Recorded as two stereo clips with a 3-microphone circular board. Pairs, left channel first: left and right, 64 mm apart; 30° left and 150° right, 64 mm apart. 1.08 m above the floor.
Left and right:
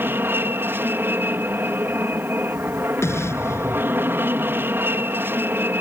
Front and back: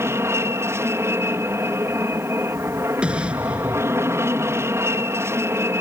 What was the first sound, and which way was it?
An aircraft, 130° right.